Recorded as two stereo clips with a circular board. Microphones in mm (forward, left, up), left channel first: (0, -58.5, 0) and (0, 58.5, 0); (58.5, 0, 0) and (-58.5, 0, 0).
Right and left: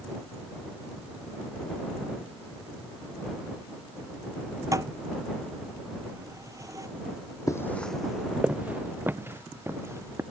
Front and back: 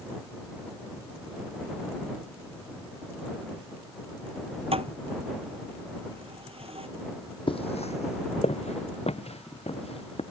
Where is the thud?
150° left.